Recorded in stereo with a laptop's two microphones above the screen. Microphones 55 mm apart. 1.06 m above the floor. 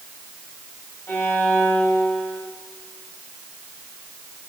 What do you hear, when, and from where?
1.1 s a violin: 50° left (ahead or behind), 2.5 m